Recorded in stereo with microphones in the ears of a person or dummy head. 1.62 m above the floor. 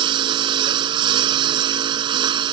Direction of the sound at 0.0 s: 25° right (ahead or behind).